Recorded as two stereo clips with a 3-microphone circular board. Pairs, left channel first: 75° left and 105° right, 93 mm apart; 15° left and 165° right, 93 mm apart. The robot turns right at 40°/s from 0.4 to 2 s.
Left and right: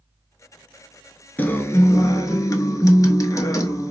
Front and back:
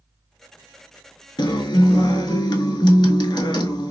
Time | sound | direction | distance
1.4 | a guitar | 10° left | 0.5 m